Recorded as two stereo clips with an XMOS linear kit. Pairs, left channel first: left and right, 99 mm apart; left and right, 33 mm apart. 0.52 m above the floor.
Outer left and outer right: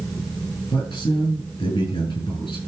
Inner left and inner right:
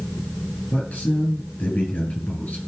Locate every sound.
0.7 s a man speaking: 50° left (ahead or behind), 9 m